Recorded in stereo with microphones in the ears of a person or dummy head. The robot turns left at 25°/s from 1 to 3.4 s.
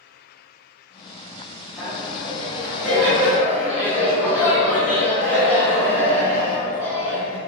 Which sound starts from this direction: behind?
Laughter, at 1.8 s.